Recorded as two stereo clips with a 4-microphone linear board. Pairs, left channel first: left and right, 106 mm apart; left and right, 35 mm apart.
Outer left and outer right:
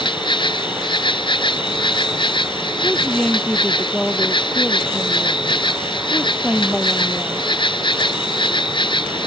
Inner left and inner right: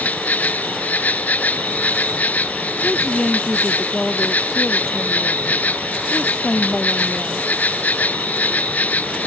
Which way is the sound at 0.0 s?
50° left (ahead or behind).